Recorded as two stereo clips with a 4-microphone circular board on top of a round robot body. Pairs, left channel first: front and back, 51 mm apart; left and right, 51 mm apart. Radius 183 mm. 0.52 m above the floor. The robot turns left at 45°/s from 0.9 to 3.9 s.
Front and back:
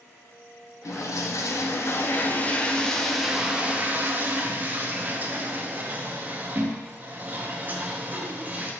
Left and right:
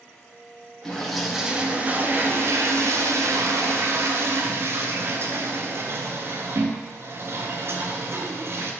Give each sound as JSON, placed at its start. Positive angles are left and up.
{"t": 0.8, "sound": "a toilet flushing", "azimuth_deg": 10, "distance_m": 0.6}